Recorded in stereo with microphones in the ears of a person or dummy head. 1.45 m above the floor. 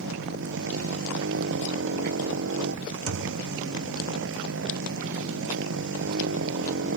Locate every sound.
0.0 s a motorcycle: 70° right (ahead or behind)
3.1 s a thud: 80° right